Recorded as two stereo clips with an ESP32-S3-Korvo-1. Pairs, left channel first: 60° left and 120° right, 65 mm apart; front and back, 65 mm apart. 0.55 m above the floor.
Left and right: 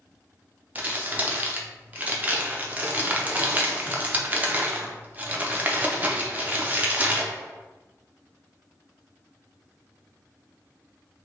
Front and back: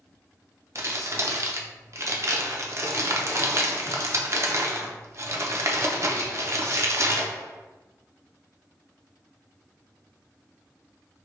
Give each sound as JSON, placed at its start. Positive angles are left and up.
{"t": 0.8, "sound": "crumpling", "azimuth_deg": -175, "distance_m": 0.5}